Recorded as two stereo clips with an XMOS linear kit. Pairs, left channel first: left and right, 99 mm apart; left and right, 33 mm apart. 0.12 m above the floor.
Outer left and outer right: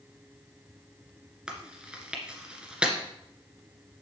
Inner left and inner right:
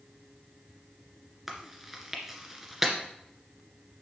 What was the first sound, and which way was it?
Chewing, 10° right (ahead or behind).